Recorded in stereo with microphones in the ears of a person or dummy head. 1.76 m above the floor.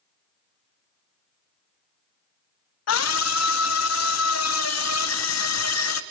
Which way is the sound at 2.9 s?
80° left.